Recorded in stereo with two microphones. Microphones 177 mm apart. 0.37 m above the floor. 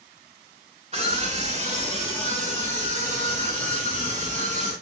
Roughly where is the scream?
Right.